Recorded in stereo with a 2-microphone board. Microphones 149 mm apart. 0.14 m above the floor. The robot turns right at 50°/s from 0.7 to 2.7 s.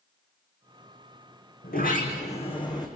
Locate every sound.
1.6 s a sliding door: 100° left, 3.5 m; by 2.9 s 150° left, 3.5 m